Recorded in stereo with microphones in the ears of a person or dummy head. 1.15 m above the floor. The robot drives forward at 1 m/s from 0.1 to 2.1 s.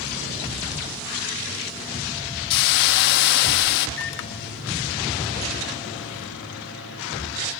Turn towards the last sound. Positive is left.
turn(degrees=75)  # may be behind; listen again after turning